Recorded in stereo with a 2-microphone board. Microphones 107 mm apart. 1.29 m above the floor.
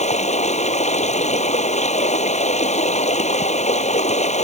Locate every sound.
0.0 s running water: 85° left